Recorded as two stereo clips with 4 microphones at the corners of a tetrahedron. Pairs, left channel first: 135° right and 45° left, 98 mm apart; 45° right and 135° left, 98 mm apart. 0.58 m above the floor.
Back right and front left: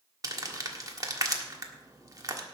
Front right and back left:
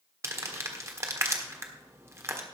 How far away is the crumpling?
About 1.5 m.